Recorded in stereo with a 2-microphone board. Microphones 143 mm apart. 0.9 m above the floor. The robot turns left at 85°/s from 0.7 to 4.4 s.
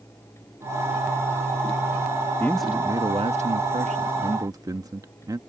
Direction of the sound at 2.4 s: 20° left.